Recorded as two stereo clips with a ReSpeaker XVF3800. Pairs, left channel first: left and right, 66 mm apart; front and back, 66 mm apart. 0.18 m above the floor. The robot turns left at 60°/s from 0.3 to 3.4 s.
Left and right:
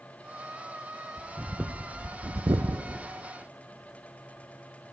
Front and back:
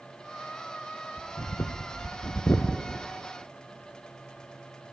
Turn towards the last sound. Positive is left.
turn(degrees=-115)